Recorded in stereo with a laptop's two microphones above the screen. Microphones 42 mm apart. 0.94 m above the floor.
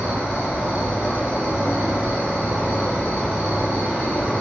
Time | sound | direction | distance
0.0 | an insect | 45° right (ahead or behind) | 1.9 m